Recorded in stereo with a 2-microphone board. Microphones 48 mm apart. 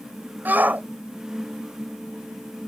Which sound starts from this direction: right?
A shout, at 0.5 s.